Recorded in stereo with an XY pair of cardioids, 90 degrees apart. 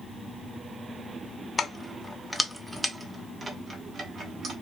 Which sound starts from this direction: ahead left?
Keys jangling, at 1.6 s.